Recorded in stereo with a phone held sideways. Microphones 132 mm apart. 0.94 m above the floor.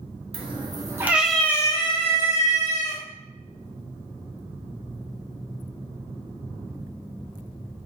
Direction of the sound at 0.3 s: 45° right (ahead or behind).